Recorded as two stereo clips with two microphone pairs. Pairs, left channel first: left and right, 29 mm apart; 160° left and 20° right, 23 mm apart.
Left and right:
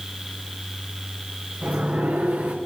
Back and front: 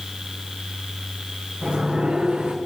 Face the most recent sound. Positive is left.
turn(degrees=-75)